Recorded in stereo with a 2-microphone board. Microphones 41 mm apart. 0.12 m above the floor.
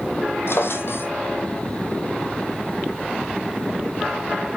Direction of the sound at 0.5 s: 75° left (ahead or behind).